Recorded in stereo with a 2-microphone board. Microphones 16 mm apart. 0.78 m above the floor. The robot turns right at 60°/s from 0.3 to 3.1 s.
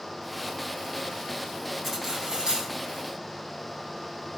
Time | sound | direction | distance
1.8 | cutlery clinking | straight behind | 3 m